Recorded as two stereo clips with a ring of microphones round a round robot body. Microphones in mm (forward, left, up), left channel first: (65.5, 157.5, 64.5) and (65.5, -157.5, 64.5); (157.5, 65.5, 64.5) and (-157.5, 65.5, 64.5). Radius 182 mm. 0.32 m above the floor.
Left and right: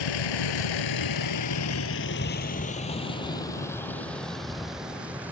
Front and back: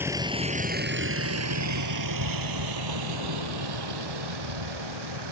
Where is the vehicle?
95° left; by 5.3 s 175° right.